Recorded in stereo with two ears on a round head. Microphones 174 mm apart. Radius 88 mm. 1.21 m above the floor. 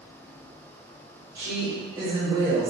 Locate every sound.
1.4 s a woman speaking: 15° right (ahead or behind), 1.9 m; by 2.7 s 30° right (ahead or behind), 1.0 m